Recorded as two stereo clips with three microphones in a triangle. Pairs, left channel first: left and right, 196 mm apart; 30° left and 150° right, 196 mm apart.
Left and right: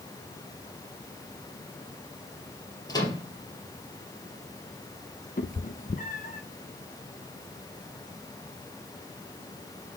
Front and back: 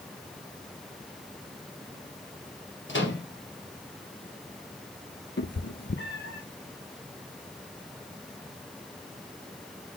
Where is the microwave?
20° left, 3 m.